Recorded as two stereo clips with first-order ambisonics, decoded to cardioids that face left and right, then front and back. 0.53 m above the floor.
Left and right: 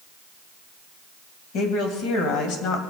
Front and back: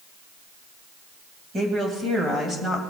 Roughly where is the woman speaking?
Behind left.